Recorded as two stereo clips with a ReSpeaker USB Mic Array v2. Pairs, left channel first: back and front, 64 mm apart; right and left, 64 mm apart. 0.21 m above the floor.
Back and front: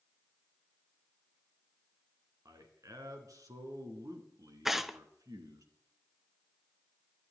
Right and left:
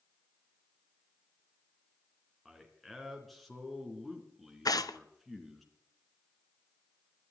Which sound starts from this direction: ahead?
A man speaking, at 2.5 s.